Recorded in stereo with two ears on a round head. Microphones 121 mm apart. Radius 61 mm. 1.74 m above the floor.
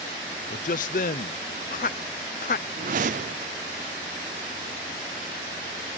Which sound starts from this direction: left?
A man speaking, at 0.5 s.